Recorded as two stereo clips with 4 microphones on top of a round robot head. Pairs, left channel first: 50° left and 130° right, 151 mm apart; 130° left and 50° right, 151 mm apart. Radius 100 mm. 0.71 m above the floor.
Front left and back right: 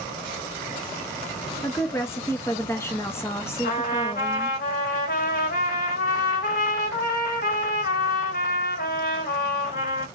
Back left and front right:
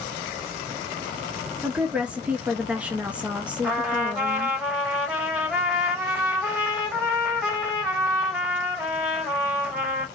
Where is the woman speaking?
15° left, 0.7 m.